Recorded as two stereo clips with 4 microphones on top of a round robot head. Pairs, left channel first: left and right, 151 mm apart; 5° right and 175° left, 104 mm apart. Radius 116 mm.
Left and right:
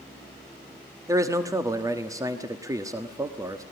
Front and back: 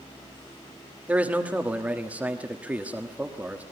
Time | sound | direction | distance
1.1 | a man speaking | 125° right | 1.4 m